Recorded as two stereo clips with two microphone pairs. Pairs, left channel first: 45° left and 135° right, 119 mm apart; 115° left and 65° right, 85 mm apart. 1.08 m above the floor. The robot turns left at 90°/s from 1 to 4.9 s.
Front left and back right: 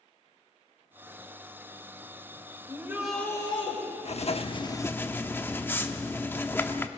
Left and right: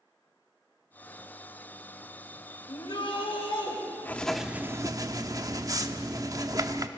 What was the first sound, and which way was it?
A shout, 175° left.